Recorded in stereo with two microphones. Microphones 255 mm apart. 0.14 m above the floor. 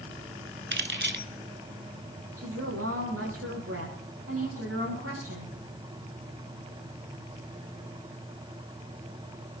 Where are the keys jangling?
50° right (ahead or behind), 1.0 m.